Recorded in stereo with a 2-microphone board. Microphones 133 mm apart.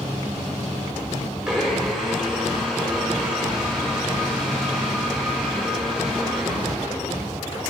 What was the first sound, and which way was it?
A blender, 5° right (ahead or behind).